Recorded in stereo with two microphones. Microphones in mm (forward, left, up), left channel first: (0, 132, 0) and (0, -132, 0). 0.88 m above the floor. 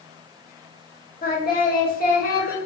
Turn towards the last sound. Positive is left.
turn(degrees=35)  # may be behind; listen again after turning